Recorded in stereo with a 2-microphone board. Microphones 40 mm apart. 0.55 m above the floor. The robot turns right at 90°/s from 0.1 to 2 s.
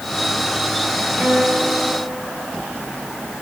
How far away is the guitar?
About 9 m.